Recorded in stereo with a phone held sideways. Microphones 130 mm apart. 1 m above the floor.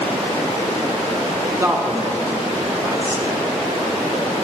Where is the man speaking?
20° right (ahead or behind), 0.6 m.